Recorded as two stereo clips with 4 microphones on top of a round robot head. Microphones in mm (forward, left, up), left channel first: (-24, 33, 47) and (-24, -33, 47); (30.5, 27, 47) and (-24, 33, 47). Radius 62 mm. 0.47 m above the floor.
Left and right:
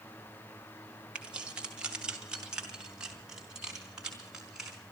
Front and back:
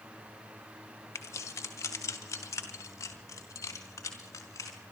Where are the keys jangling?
20° right, 1.5 m; by 4.8 s 10° right, 4 m.